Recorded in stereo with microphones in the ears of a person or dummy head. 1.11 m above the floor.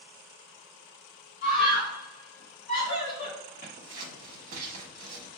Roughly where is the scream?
Left.